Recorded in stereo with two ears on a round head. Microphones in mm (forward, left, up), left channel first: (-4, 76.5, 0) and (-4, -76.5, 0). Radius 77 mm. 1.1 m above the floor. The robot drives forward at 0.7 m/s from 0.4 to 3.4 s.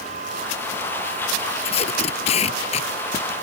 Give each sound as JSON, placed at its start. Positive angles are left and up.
{"t": 1.6, "sound": "tape being pulled", "side_deg": 35}